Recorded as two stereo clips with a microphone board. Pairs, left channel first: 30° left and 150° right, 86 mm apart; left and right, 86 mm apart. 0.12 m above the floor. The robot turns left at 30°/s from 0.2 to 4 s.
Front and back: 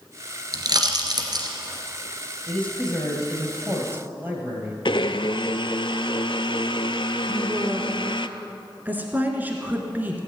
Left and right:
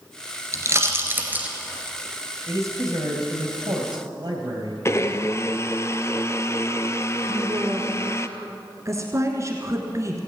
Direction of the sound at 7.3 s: 95° right.